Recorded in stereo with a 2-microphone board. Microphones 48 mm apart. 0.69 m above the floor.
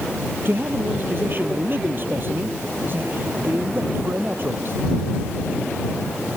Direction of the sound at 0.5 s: 45° right (ahead or behind).